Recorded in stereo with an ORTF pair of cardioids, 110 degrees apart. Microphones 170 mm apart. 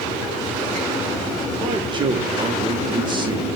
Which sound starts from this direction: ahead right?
A man speaking, at 1.6 s.